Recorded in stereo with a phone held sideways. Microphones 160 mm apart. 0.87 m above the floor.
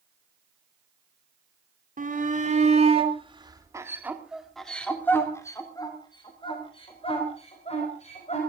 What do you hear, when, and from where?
2.0 s a shout: 60° right (ahead or behind), 2.5 m; by 8.4 s 45° left (ahead or behind), 5 m